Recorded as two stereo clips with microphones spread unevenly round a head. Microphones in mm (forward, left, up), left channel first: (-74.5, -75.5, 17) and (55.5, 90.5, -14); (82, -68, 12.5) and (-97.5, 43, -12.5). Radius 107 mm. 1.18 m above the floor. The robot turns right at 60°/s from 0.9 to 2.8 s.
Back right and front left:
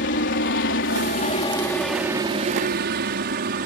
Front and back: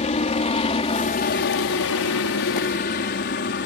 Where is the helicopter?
90° right; by 3.7 s 10° left.